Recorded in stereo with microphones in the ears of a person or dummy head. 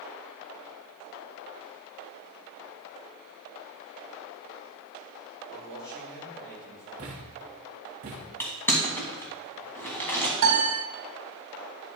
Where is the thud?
30° right (ahead or behind), 1.2 m.